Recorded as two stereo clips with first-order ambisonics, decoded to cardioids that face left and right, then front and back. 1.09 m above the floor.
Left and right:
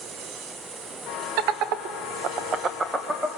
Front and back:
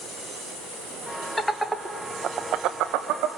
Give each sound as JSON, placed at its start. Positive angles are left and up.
{"t": 1.4, "sound": "laughter", "azimuth_deg": -80, "distance_m": 1.3}